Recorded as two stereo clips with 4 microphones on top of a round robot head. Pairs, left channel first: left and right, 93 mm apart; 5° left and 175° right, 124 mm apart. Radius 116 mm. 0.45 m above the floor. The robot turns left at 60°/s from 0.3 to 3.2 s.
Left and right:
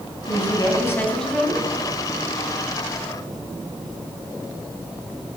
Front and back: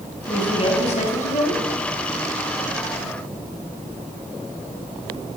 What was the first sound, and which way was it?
A woman speaking, 65° left.